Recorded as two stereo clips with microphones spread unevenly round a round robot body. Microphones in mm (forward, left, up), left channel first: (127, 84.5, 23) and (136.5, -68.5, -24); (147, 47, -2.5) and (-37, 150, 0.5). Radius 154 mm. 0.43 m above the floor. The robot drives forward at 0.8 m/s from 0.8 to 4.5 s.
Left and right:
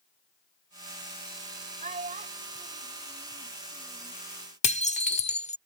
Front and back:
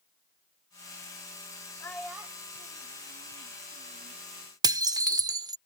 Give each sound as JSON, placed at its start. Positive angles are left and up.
{"t": 1.8, "sound": "a child speaking", "azimuth_deg": -100}
{"t": 4.6, "sound": "dishes clattering", "azimuth_deg": 100}